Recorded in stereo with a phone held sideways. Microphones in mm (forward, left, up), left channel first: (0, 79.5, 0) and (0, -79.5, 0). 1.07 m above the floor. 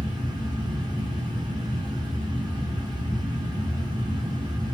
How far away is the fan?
About 0.8 m.